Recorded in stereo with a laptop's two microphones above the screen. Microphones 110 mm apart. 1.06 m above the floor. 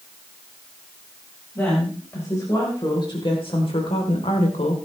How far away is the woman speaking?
About 5 m.